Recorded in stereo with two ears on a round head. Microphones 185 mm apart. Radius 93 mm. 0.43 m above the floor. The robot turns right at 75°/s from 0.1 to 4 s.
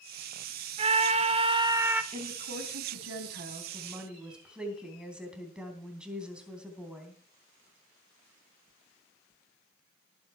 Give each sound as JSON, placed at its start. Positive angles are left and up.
{"t": 0.8, "sound": "a scream", "azimuth_deg": -105, "distance_m": 1.2}
{"t": 2.1, "sound": "a woman speaking", "azimuth_deg": -145, "distance_m": 3.0}